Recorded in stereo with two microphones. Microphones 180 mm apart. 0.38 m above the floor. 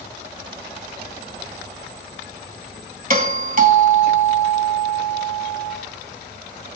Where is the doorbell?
50° right (ahead or behind), 2.5 m.